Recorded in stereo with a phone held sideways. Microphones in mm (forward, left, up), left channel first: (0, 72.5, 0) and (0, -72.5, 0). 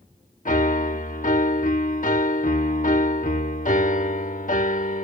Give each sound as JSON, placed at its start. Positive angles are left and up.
{"t": 0.5, "sound": "a piano", "side_deg": 60}